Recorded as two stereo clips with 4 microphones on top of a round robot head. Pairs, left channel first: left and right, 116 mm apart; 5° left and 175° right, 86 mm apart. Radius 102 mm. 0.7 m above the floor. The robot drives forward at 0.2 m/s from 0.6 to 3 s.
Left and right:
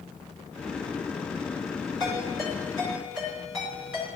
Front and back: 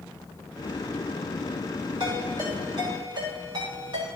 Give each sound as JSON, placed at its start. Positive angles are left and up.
{"t": 2.0, "sound": "a ringtone", "azimuth_deg": 150, "distance_m": 4.5}